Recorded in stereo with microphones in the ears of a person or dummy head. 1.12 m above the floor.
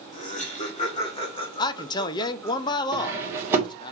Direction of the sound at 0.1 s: 40° left (ahead or behind).